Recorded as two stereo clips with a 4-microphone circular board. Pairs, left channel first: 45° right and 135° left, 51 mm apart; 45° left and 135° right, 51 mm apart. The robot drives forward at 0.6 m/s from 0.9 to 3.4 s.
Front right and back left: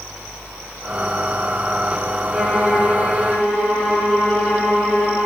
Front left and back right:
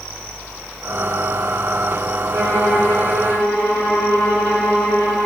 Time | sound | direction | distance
2.3 | a violin | 145° right | 4.5 m